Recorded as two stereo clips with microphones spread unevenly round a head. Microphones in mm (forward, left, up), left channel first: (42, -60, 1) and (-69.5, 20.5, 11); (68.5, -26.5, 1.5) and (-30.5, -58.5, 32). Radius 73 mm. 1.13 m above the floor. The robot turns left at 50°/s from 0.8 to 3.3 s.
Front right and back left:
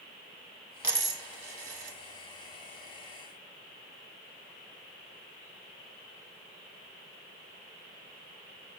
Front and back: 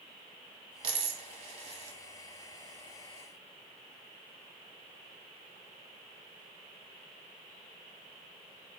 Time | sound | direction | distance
0.8 | a dropped coin | 145° right | 0.8 m